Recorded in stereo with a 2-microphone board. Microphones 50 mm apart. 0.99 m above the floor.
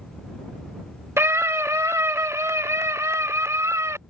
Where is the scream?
60° right (ahead or behind); by 4.0 s 85° right.